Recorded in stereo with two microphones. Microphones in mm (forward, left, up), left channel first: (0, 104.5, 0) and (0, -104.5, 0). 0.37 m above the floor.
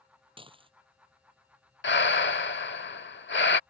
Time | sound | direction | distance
0.4 | dishes clattering | 25° right (ahead or behind) | ?
1.8 | breathing | 60° left (ahead or behind) | ?